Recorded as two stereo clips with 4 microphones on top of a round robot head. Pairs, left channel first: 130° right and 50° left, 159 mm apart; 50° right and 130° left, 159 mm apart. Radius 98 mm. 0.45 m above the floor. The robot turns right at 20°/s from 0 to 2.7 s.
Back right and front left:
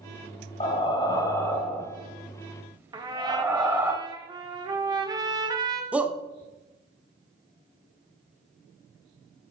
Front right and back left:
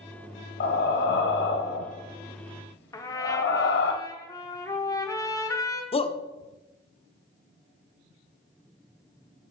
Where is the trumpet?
5° left, 1.1 m.